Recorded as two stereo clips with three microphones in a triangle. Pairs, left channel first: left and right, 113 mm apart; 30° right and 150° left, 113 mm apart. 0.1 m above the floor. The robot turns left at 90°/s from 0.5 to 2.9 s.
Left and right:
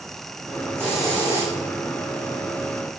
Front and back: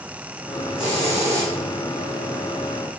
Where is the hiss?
155° right, 5.5 m; by 1.5 s 135° left, 5.5 m.